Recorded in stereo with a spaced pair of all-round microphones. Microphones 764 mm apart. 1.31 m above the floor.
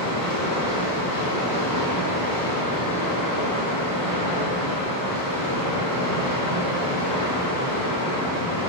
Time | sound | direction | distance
0.0 | running water | 25° left (ahead or behind) | 0.7 m